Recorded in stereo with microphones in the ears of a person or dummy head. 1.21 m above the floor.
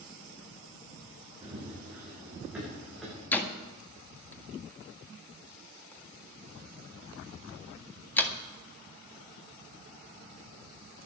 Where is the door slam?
10° left (ahead or behind), 1.7 m.